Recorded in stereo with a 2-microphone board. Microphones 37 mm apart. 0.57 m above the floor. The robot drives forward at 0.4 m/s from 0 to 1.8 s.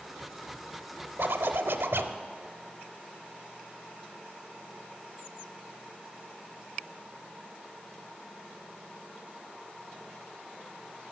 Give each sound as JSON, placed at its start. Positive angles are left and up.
{"t": 1.2, "sound": "a zipper", "side_deg": -70, "distance_m": 0.6}